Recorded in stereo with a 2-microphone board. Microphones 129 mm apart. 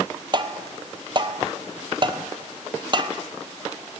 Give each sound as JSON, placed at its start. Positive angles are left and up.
{"t": 0.3, "sound": "tapping", "side_deg": -40, "distance_m": 0.8}